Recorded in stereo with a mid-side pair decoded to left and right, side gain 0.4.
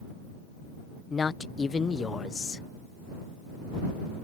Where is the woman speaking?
45° left.